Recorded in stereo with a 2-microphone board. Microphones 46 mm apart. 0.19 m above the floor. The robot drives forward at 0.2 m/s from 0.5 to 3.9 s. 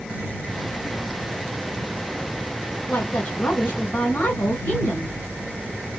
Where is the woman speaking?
40° left (ahead or behind), 1.8 m.